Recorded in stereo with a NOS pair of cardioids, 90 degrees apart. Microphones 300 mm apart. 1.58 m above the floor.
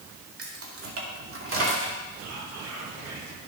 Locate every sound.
0.4 s keys jangling: 50° right, 2 m; by 2.0 s 40° right, 3.5 m
2.2 s whispering: 55° right, 3 m